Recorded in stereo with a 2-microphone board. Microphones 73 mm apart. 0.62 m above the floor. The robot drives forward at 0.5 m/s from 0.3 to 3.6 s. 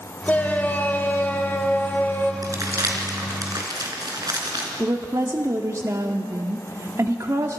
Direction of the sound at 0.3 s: 25° left (ahead or behind).